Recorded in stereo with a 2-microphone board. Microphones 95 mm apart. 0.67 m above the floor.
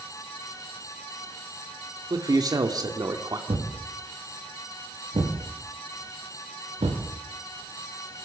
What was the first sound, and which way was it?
A man speaking, 40° right (ahead or behind).